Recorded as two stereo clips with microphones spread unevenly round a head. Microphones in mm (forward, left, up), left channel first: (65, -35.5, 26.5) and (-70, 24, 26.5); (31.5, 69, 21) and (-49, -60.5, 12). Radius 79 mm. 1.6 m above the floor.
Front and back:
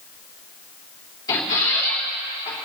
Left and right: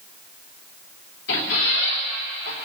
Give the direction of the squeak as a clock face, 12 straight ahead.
11 o'clock.